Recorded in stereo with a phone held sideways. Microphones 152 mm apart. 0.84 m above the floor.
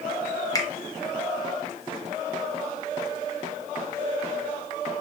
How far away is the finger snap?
About 0.5 m.